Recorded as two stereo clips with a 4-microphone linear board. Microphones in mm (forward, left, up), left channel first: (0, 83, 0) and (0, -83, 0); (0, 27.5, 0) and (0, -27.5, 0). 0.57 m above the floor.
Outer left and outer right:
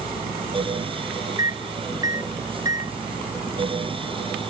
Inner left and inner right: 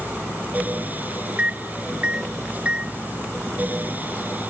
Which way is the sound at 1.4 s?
20° right (ahead or behind).